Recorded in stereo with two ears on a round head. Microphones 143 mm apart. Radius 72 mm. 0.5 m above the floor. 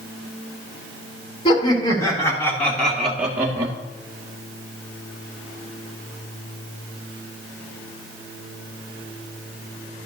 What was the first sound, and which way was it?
Laughter, 30° left (ahead or behind).